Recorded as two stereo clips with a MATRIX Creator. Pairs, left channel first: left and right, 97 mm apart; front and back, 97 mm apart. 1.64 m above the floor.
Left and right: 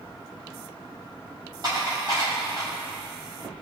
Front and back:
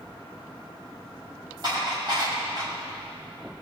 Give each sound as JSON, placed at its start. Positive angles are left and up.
{"t": 1.6, "sound": "dishes clattering", "azimuth_deg": -135, "distance_m": 6.0}